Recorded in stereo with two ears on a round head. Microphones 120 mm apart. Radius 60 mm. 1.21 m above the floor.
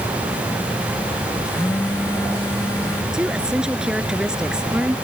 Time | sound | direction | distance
1.4 | a phone buzzing | 20° left (ahead or behind) | ?
3.1 | a woman speaking | 5° right (ahead or behind) | ?